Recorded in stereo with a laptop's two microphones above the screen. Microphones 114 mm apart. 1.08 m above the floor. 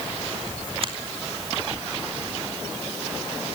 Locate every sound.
0.8 s a finger snap: 50° right (ahead or behind), 2.5 m